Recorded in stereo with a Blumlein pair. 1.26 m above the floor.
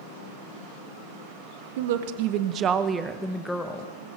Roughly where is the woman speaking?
Ahead right.